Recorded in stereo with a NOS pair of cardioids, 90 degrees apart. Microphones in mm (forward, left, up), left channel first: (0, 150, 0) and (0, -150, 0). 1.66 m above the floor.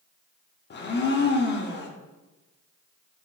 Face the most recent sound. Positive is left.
turn(degrees=35)